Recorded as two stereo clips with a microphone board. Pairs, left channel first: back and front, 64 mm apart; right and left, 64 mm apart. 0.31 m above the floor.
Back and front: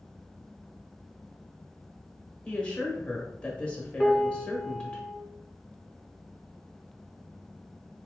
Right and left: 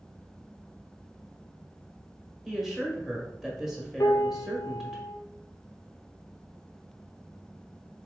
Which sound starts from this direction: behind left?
A woman speaking, at 2.5 s.